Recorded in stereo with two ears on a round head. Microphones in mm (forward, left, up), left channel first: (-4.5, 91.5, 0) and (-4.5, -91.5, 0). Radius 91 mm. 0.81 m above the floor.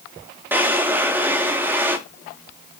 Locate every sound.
0.5 s a drawer: 10° right (ahead or behind), 0.8 m